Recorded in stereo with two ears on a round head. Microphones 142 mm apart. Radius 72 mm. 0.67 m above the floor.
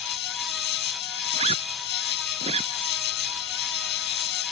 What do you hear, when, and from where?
0.0 s an insect: 80° left
1.3 s a zipper: 40° right (ahead or behind)